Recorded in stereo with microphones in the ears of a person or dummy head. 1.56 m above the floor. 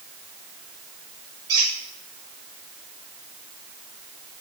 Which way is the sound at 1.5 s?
15° right (ahead or behind).